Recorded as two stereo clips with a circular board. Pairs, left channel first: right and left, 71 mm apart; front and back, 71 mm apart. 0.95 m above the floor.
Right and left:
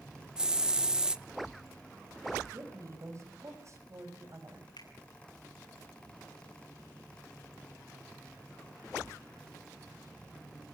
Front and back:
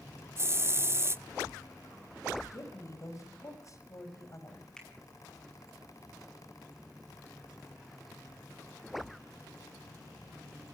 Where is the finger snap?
85° right, 7.5 m.